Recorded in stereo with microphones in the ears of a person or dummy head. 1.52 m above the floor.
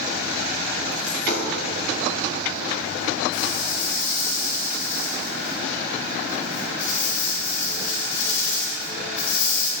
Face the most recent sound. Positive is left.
turn(degrees=60)  # may be behind; listen again after turning